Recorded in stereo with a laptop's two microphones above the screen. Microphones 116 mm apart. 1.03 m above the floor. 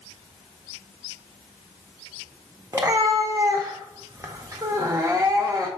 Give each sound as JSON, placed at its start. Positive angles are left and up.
{"t": 2.7, "sound": "a cat meowing", "side_deg": -30, "distance_m": 0.5}